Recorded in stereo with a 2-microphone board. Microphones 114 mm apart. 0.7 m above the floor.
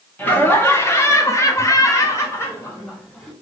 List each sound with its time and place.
0.2 s laughter: 15° left (ahead or behind), 1.0 m